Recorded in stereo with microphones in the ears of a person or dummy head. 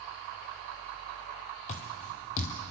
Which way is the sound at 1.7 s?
30° left (ahead or behind).